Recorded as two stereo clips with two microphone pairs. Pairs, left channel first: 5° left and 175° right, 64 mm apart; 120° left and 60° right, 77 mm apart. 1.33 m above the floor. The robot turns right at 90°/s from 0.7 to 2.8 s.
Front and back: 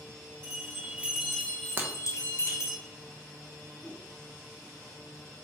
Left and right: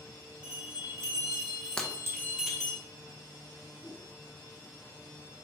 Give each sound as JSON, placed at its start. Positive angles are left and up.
{"t": 0.4, "sound": "a bell", "azimuth_deg": -135, "distance_m": 0.8}
{"t": 1.8, "sound": "breaking glass", "azimuth_deg": -170, "distance_m": 0.5}
{"t": 3.8, "sound": "a whoosh", "azimuth_deg": 65, "distance_m": 0.5}